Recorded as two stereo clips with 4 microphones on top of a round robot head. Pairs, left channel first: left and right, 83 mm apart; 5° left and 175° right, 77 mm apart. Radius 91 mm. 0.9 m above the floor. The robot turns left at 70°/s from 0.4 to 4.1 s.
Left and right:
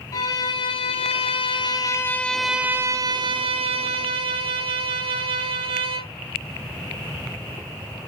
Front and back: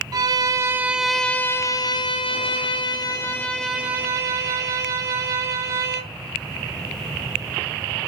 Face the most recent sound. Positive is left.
turn(degrees=-115)